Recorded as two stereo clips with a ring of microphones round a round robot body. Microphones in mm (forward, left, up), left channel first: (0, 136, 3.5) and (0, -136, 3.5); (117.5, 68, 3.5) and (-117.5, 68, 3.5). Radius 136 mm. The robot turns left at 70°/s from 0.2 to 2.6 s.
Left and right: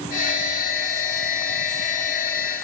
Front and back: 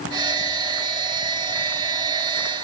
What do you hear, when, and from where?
Only background noise.